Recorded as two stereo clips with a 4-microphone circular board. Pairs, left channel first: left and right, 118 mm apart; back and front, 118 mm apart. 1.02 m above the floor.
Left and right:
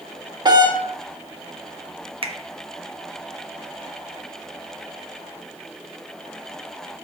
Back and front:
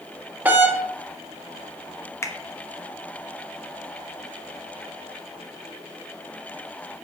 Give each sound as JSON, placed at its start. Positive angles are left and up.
{"t": 0.5, "sound": "a doorbell", "azimuth_deg": -65, "distance_m": 1.0}
{"t": 2.2, "sound": "a finger snap", "azimuth_deg": -115, "distance_m": 0.7}